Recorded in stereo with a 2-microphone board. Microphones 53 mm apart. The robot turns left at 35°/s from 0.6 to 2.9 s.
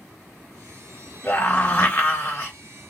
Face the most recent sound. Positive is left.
turn(degrees=55)